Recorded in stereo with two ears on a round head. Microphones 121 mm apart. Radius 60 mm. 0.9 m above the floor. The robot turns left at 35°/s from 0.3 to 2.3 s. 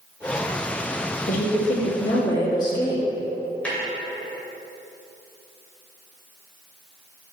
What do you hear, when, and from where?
1.3 s a woman speaking: 70° left, 1.7 m; by 3.0 s 35° left, 1.7 m
3.6 s a snare drum: 10° left (ahead or behind), 2 m